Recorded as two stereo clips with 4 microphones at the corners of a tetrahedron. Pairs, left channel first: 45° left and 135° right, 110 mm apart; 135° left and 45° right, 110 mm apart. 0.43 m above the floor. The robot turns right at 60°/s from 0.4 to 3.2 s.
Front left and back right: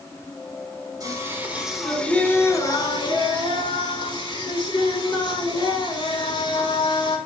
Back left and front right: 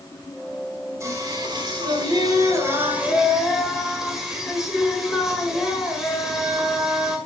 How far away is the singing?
About 1.6 m.